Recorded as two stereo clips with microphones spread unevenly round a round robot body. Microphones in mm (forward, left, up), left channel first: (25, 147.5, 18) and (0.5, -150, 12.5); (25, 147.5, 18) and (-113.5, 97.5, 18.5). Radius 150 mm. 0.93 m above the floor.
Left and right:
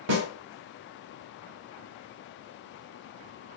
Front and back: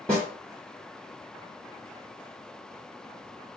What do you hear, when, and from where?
0.1 s a snare drum: 65° right, 1.2 m